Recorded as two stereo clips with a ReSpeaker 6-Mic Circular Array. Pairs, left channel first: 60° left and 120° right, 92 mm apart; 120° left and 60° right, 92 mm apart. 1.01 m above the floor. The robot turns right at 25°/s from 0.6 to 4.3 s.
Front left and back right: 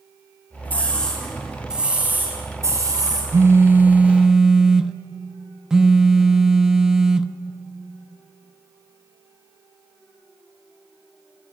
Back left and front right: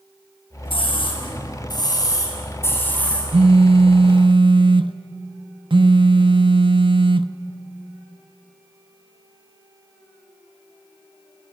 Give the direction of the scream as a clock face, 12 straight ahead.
8 o'clock.